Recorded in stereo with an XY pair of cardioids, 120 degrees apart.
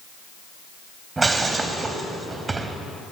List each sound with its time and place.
1.2 s breaking glass: 20° right, 3 m